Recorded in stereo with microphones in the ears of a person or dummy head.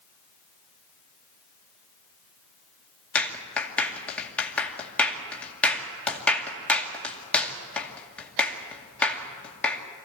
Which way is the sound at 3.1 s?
5° left (ahead or behind).